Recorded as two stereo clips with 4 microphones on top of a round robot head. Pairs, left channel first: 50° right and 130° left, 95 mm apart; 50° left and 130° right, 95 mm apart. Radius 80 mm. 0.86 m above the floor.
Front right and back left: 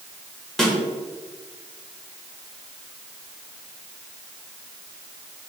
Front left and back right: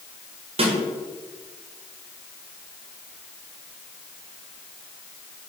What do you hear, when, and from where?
0.6 s a snare drum: 135° right, 1.5 m